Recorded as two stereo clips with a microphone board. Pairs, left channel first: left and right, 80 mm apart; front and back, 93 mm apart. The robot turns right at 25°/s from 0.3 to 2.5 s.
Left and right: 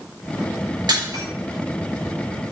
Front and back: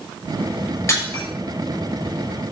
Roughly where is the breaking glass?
Ahead right.